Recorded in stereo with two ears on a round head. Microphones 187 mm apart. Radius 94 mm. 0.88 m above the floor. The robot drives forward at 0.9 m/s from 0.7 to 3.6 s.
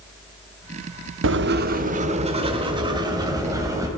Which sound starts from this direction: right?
Writing, at 1.2 s.